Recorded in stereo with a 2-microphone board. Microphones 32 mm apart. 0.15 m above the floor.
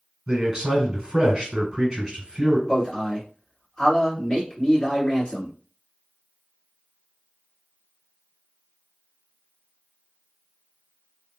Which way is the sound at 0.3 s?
25° right (ahead or behind).